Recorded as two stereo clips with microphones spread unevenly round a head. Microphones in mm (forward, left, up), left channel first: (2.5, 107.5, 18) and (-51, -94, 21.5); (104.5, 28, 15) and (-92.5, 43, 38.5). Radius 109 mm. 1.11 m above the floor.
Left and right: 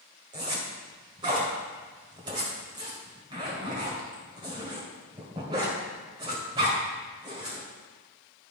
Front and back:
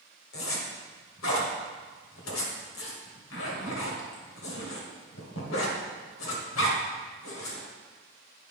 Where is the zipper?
35° right, 1.5 m.